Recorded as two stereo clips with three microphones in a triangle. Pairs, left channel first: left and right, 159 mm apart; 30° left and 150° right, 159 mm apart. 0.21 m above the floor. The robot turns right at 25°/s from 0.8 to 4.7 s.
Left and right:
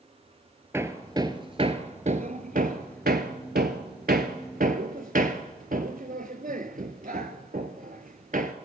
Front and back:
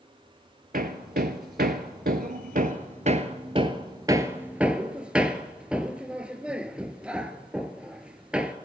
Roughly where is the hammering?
Behind.